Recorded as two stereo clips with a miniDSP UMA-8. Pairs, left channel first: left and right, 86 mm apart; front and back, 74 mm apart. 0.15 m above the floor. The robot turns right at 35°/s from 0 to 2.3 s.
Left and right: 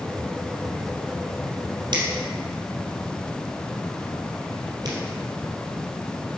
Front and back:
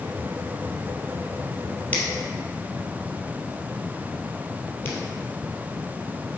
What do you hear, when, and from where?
1.9 s a finger snap: 70° right, 2.5 m; by 5.0 s 55° right, 2.5 m